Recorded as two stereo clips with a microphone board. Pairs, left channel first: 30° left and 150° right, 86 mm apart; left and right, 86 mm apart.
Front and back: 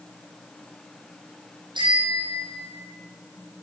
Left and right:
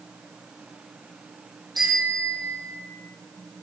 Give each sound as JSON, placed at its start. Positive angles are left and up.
{"t": 1.8, "sound": "a bicycle bell", "azimuth_deg": -125, "distance_m": 6.0}